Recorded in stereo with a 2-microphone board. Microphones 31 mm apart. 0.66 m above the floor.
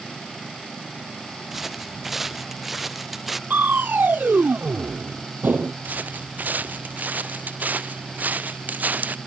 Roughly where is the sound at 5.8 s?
Right.